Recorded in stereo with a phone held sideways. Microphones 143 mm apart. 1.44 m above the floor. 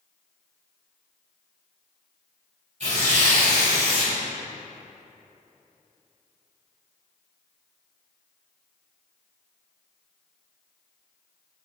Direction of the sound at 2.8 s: 55° right (ahead or behind).